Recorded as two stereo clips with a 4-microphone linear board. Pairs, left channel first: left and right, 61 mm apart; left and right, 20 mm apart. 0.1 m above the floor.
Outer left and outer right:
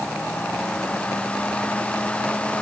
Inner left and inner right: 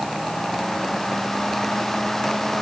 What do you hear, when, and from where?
Only background noise.